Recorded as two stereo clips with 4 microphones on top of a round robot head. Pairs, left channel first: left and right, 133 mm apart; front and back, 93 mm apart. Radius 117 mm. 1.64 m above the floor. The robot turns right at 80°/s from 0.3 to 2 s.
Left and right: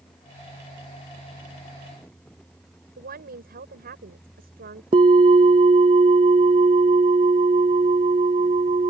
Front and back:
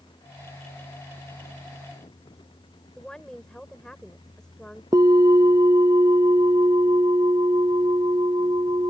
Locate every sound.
3.0 s a woman speaking: 90° right
4.9 s a bell: 120° right